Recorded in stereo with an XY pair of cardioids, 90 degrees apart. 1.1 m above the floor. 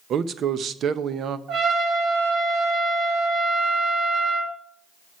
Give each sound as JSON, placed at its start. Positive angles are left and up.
{"t": 0.1, "sound": "a man speaking", "azimuth_deg": -70, "distance_m": 0.7}
{"t": 1.5, "sound": "a trumpet", "azimuth_deg": -65, "distance_m": 3.5}